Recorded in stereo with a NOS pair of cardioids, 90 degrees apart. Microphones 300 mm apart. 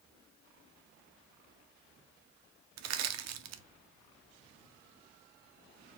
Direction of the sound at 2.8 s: 70° right.